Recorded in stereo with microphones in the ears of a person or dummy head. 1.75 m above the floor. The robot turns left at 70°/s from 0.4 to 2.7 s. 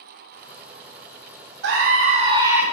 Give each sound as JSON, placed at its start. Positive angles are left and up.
{"t": 1.6, "sound": "a scream", "azimuth_deg": -105, "distance_m": 0.8}